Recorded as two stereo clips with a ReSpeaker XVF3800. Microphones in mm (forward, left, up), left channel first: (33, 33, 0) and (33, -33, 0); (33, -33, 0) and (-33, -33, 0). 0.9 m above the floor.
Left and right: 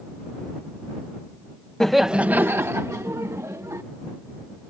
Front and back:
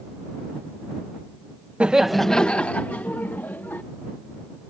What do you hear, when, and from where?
1.8 s laughter: 155° left; by 3.8 s 55° right